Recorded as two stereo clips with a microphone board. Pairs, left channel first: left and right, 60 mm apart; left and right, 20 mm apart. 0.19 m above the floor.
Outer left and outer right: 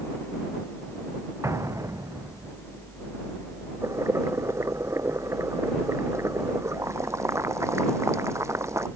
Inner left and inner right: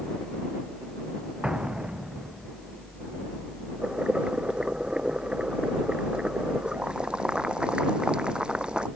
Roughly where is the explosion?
Right.